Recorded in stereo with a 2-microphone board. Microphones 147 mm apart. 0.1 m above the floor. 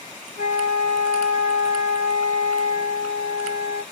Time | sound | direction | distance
0.4 | a flute | 55° left (ahead or behind) | 2 m